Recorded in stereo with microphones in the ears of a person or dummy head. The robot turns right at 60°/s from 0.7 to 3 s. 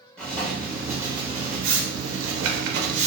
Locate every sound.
0.2 s writing: 175° left, 0.5 m; by 3.1 s 45° right, 0.5 m